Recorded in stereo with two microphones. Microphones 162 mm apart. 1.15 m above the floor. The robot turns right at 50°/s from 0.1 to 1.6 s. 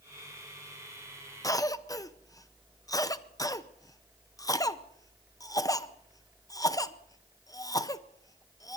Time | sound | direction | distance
1.4 | a cough | 20° left (ahead or behind) | 0.7 m